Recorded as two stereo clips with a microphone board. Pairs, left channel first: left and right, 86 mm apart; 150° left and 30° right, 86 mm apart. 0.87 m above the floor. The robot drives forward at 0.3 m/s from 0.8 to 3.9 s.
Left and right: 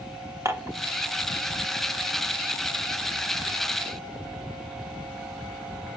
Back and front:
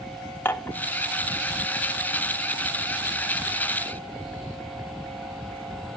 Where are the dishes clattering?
145° right, 1.4 m.